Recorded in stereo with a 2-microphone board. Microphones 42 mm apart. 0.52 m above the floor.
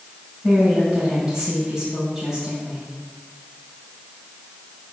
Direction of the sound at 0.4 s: 15° right (ahead or behind).